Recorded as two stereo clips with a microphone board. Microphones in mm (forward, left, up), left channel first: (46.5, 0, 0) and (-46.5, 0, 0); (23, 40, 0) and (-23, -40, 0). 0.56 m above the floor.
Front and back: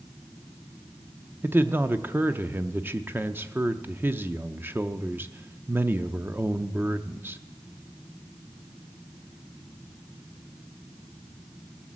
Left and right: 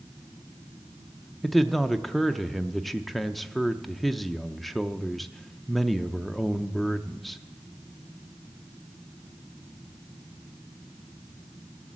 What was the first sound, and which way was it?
A man speaking, 150° left.